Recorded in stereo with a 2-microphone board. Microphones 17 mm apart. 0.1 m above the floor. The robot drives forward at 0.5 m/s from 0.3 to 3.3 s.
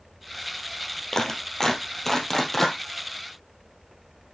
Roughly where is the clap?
Left.